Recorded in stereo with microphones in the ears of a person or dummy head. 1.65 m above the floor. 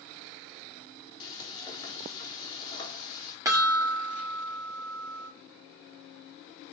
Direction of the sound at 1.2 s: 25° left (ahead or behind).